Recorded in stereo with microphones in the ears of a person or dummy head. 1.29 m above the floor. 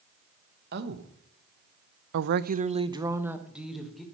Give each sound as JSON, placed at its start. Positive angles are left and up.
{"t": 0.7, "sound": "a woman speaking", "side_deg": -50, "distance_m": 1.1}